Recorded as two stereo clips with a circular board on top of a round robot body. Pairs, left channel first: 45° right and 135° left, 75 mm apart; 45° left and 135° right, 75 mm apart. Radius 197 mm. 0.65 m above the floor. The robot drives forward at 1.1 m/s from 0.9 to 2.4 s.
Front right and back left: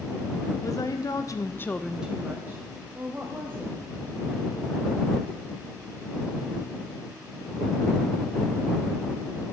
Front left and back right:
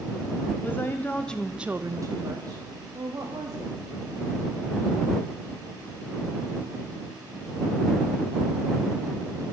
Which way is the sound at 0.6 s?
15° right.